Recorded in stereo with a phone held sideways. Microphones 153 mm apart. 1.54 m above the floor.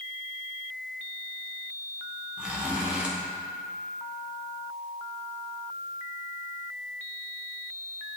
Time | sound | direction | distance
2.4 | a zipper | 10° right (ahead or behind) | 1.1 m